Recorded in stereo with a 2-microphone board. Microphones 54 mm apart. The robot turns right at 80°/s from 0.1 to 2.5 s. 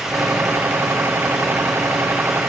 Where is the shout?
I don't hear a shout.